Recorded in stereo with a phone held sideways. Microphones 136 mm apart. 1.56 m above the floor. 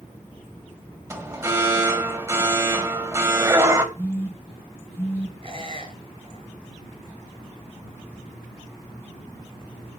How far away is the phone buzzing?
About 7 m.